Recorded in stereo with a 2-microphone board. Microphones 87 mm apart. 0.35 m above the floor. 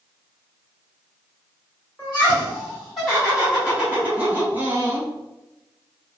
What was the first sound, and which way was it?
Laughter, 15° left (ahead or behind).